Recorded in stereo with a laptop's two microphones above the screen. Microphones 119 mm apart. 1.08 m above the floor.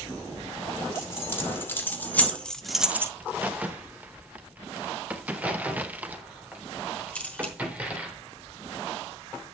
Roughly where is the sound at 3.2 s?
Centre.